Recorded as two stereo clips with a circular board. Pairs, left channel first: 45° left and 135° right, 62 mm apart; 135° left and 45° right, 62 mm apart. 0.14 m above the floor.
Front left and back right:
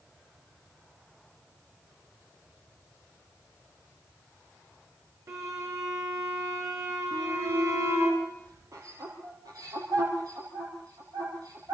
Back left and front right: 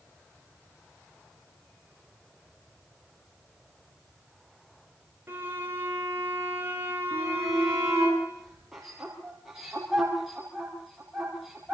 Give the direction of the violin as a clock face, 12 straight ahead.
3 o'clock.